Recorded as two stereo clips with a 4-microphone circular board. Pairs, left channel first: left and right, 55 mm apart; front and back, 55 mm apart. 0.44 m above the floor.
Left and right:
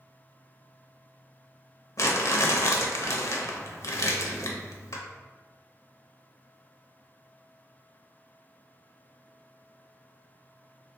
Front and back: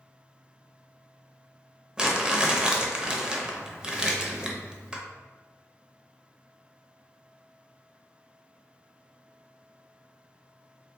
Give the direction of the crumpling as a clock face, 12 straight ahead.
9 o'clock.